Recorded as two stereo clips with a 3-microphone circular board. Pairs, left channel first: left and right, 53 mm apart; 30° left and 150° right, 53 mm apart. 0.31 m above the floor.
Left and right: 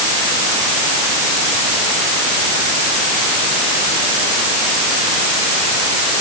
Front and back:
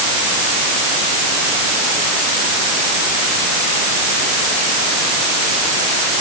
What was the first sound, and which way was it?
Only background noise.